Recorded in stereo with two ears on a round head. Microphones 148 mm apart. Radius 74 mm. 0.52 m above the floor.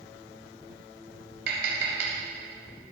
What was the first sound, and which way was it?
Tapping, 70° right (ahead or behind).